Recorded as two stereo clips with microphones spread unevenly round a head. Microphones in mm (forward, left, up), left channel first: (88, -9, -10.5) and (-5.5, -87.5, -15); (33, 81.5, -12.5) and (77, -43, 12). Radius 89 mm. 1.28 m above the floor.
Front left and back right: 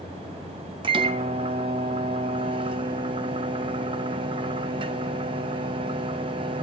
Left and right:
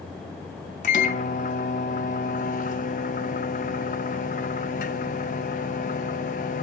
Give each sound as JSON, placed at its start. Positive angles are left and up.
{"t": 0.8, "sound": "a microwave", "azimuth_deg": 160, "distance_m": 0.8}